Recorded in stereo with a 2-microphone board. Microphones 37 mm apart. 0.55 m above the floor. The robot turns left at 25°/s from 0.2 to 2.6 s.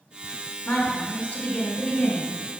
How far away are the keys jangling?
No keys jangling in this recording.